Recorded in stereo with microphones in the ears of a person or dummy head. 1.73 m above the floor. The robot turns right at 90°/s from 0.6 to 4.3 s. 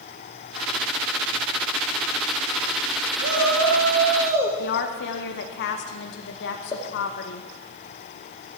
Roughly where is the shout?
Right.